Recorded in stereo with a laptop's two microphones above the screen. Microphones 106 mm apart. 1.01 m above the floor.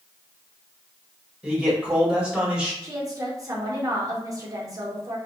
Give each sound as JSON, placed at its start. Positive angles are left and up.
{"t": 1.4, "sound": "a man speaking", "side_deg": -10, "distance_m": 1.4}
{"t": 2.8, "sound": "a woman speaking", "side_deg": -35, "distance_m": 0.7}